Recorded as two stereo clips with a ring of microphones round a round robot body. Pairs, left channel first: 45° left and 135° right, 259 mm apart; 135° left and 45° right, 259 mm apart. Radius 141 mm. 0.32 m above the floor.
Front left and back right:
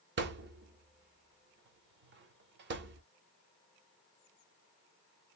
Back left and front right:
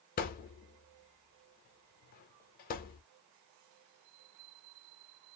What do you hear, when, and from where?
0.2 s a thud: 175° right, 0.6 m